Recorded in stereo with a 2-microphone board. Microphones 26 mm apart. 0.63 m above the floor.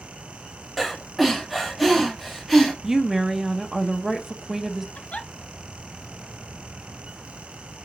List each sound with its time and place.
0.8 s breathing: centre (ahead or behind), 1.3 m
2.8 s a woman speaking: 20° right (ahead or behind), 0.6 m
5.0 s a giggle: 60° left (ahead or behind), 0.8 m